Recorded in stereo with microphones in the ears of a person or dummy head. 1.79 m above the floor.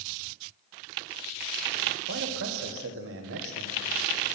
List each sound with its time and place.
2.1 s a man speaking: 70° right (ahead or behind), 1.7 m